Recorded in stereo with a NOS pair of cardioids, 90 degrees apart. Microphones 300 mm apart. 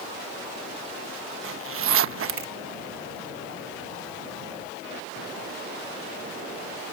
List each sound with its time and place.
1.4 s a zipper: 50° right